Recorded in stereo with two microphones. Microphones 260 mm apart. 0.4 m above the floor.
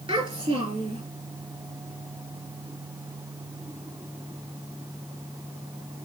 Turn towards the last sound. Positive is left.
turn(degrees=-20)  # may be behind; listen again after turning